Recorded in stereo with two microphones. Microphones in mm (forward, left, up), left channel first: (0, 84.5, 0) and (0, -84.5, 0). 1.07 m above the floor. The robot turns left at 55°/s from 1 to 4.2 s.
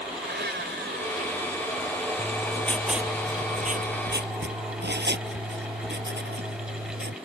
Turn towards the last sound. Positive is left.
turn(degrees=-75)